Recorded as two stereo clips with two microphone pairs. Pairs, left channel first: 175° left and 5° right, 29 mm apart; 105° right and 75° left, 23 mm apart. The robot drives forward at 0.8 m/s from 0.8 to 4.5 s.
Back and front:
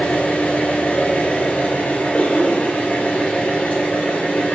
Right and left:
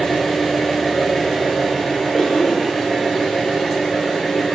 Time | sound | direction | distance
0.0 | an engine running | 175° left | 3 m
2.1 | a cough | 175° right | 2.5 m